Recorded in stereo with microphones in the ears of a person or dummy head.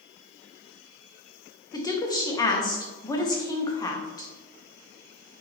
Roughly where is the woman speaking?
Centre.